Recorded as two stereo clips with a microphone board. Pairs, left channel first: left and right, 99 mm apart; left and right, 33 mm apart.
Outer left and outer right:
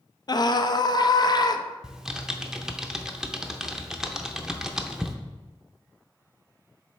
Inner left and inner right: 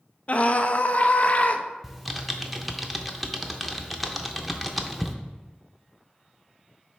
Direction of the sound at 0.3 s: 45° left (ahead or behind).